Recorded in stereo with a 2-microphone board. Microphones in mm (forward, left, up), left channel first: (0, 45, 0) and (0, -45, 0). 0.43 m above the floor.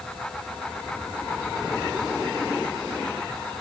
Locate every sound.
Only background noise.